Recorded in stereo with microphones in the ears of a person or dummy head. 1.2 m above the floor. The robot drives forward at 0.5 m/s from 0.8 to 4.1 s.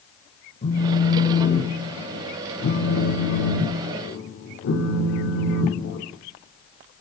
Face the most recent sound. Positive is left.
turn(degrees=55)  # may be behind; listen again after turning